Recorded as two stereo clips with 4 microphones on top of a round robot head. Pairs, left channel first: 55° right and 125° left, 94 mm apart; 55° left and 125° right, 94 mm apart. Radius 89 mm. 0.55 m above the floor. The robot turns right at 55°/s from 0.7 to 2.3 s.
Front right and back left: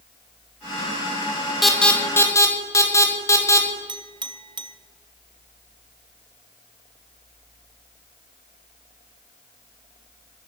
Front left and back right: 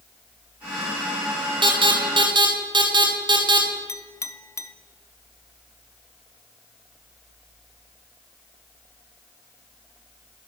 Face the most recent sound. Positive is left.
turn(degrees=105)